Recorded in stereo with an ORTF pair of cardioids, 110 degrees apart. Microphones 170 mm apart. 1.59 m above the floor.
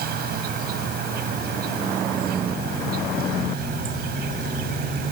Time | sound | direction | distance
0.0 | an insect | 65° right | ?